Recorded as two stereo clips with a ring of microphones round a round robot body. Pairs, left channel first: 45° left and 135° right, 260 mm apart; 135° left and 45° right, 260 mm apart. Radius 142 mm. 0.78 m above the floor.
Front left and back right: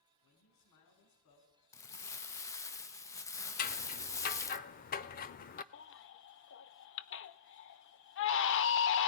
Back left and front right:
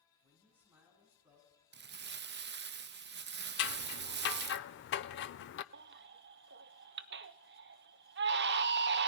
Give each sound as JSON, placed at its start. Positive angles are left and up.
{"t": 0.2, "sound": "a man speaking", "azimuth_deg": 40, "distance_m": 8.0}
{"t": 1.7, "sound": "crumpling", "azimuth_deg": -30, "distance_m": 0.8}
{"t": 3.6, "sound": "scissors", "azimuth_deg": 95, "distance_m": 0.6}
{"t": 5.7, "sound": "a baby crying", "azimuth_deg": 5, "distance_m": 0.7}